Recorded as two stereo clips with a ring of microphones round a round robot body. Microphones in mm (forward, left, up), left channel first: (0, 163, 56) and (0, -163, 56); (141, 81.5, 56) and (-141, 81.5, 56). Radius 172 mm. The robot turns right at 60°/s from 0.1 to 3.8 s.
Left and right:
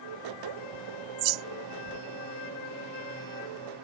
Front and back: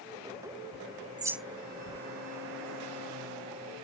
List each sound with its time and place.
0.7 s a bird: 130° right; by 2.0 s 55° right